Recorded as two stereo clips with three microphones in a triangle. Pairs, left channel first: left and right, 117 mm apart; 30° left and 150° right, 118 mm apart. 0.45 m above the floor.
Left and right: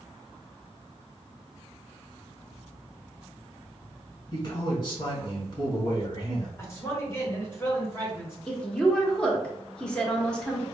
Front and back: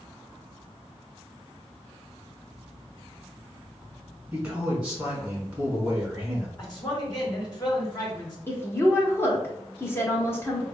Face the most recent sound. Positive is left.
turn(degrees=25)